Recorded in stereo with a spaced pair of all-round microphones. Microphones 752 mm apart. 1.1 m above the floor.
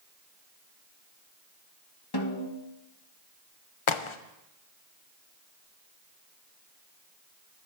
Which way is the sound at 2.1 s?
30° left (ahead or behind).